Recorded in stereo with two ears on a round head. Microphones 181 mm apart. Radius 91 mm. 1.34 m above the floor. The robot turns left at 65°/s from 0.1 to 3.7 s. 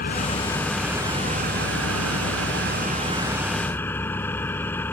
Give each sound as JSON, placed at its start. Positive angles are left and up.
{"t": 0.0, "sound": "an engine running", "azimuth_deg": 45}